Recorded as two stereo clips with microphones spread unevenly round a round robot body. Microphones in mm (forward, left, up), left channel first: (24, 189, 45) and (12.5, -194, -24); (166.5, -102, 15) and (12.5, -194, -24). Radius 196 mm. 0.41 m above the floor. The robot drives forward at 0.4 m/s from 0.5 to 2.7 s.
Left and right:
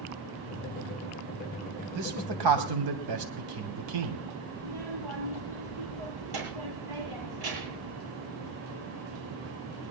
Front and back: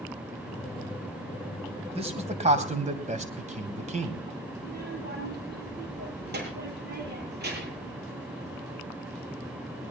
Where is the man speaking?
100° right, 3 m; by 4.2 s 110° right, 3 m.